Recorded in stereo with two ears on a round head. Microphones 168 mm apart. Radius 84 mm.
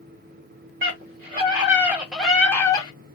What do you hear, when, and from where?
0.8 s a scream: 40° right (ahead or behind), 1.1 m; by 2.9 s 25° left (ahead or behind), 0.9 m